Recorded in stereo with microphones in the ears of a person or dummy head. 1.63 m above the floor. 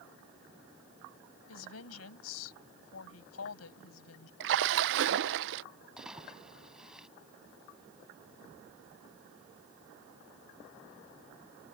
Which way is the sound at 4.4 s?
65° right (ahead or behind).